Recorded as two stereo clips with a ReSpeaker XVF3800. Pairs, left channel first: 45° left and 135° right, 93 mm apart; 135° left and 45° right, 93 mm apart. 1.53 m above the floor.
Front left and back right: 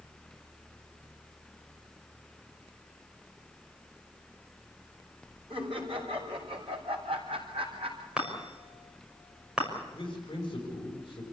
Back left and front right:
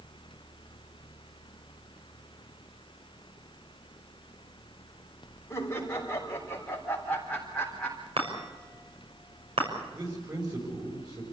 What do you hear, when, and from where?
5.5 s laughter: 155° right, 4.5 m; by 8.1 s 140° right, 4 m
8.2 s a chime: 55° right, 6 m
9.9 s a man speaking: straight ahead, 6.5 m